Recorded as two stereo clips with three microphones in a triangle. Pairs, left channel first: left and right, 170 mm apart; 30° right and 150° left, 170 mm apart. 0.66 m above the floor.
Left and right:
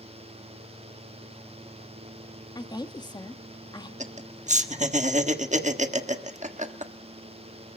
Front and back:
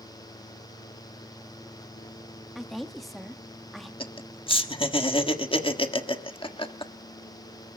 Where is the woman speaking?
60° left, 1.1 m.